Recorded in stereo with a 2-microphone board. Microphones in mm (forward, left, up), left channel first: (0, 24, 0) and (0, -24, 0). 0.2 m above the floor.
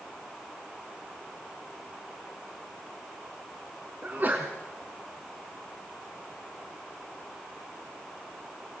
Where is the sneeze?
40° right (ahead or behind), 1.8 m.